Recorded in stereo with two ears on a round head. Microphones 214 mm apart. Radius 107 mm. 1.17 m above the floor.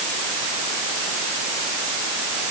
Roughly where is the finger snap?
No finger snap in this recording.